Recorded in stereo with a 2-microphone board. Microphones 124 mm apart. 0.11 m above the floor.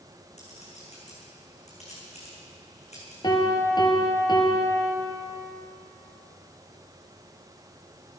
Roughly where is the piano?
Left.